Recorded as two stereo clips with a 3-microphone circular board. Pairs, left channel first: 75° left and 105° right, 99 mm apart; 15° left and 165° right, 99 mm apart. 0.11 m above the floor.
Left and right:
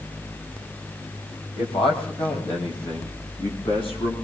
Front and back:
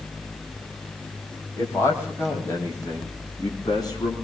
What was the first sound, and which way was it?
A man speaking, 80° left.